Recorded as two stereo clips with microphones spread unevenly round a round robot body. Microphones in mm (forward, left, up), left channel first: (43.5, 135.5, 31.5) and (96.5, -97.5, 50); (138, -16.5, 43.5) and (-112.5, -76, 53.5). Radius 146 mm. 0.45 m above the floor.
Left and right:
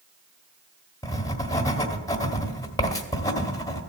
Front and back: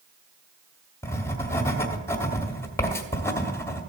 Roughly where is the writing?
Left.